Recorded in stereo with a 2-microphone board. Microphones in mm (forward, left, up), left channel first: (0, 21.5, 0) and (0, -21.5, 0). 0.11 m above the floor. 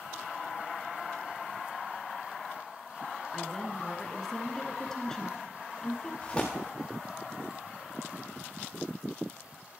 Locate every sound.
3.3 s a woman speaking: 10° left (ahead or behind), 1.4 m
6.2 s tearing paper: 15° left (ahead or behind), 4.5 m